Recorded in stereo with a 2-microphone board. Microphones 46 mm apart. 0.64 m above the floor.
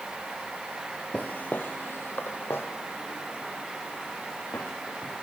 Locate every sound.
1.1 s footsteps: 30° left (ahead or behind), 0.8 m; by 5.1 s 65° left (ahead or behind), 4 m